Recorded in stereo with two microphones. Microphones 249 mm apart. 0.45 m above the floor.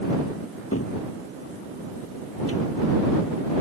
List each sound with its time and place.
0.7 s a cupboard door: 65° left (ahead or behind)